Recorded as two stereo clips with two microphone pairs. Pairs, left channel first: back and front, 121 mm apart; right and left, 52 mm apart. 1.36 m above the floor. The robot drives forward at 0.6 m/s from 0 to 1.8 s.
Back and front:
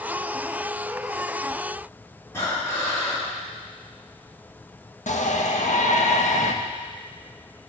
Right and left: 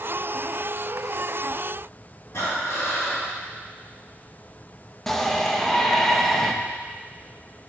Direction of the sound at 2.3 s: 115° right.